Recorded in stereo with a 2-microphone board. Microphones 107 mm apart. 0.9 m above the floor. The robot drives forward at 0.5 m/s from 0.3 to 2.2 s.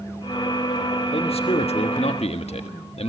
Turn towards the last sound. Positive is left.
turn(degrees=70)  # may be behind; listen again after turning